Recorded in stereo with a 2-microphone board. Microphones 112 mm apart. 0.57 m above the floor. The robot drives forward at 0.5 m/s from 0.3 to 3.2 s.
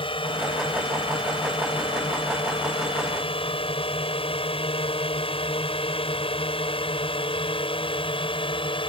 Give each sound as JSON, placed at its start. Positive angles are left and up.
{"t": 0.0, "sound": "a drone", "side_deg": 55}